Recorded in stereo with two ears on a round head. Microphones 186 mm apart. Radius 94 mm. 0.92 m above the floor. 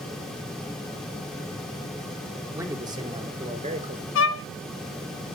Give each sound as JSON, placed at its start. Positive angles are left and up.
{"t": 2.5, "sound": "a man speaking", "side_deg": -15, "distance_m": 2.5}
{"t": 4.2, "sound": "a violin", "side_deg": 60, "distance_m": 1.1}